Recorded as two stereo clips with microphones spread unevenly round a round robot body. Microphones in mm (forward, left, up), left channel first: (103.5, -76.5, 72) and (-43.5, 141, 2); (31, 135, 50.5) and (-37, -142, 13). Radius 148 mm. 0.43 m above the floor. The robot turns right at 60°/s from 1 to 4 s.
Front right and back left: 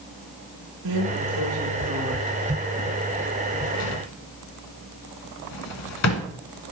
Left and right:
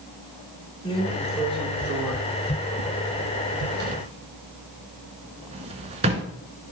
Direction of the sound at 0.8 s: 145° left.